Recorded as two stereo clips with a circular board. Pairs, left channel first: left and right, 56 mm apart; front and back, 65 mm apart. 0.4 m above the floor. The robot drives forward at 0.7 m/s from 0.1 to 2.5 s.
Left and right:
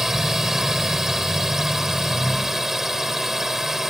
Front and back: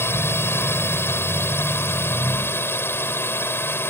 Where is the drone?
10° right.